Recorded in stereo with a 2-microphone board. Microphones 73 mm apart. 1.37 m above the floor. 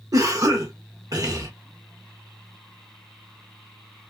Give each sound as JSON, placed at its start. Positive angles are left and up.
{"t": 0.1, "sound": "a cough", "side_deg": -60, "distance_m": 1.5}